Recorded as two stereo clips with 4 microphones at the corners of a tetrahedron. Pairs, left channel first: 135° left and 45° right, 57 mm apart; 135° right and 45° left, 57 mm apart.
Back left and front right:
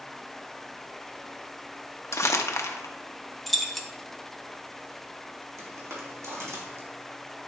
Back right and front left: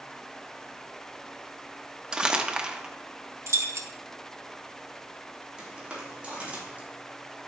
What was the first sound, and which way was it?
Crumpling, 115° left.